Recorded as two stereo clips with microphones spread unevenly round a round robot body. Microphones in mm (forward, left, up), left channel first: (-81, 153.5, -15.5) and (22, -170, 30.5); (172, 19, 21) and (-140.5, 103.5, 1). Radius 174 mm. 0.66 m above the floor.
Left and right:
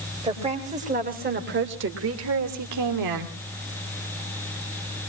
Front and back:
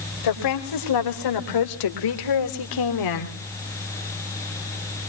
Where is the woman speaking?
5° left, 3.5 m; by 3.4 s 45° right, 2 m.